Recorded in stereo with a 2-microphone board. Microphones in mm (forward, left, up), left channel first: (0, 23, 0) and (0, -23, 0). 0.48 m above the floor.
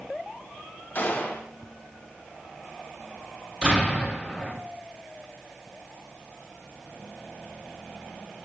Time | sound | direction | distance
0.9 | a gunshot | 45° left (ahead or behind) | 2.0 m
3.6 | an explosion | 20° right (ahead or behind) | 3 m